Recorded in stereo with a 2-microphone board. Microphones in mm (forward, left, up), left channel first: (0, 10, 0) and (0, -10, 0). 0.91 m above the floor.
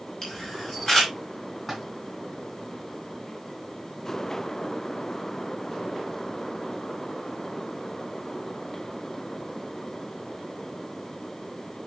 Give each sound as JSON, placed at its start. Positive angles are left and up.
{"t": 0.2, "sound": "a camera shutter", "side_deg": 20, "distance_m": 5.0}
{"t": 1.7, "sound": "a splash", "side_deg": 0, "distance_m": 2.5}